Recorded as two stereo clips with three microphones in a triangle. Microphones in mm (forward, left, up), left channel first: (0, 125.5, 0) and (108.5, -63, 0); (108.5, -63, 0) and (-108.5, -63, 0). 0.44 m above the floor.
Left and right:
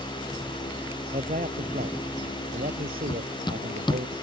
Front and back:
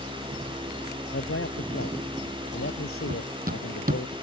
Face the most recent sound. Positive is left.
turn(degrees=175)